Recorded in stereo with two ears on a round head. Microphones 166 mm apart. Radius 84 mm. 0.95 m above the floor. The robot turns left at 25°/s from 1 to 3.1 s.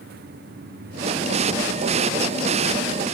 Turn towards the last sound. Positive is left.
No sound to turn to.